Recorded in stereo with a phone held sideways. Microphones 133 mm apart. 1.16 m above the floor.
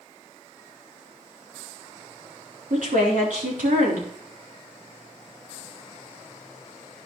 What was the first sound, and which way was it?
A woman speaking, 80° right.